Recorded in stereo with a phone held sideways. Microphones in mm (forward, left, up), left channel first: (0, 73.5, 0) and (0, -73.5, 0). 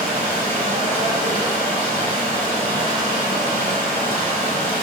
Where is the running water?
55° right (ahead or behind), 1.3 m.